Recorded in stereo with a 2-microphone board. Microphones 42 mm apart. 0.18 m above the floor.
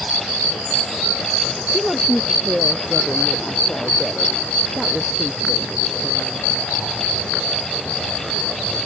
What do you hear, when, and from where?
1.7 s a woman speaking: 5° right (ahead or behind)